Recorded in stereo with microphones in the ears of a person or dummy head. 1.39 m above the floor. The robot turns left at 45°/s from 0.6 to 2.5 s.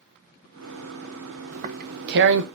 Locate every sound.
1.5 s tearing paper: 35° right (ahead or behind), 0.9 m; by 2.5 s 70° right (ahead or behind), 0.9 m